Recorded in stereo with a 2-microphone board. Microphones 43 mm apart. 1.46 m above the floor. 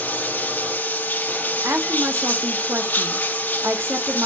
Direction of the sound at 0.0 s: 45° left (ahead or behind).